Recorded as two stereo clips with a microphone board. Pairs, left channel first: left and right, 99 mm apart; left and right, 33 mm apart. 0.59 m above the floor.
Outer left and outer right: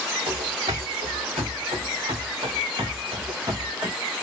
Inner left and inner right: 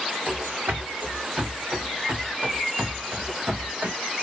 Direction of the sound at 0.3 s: 75° right (ahead or behind).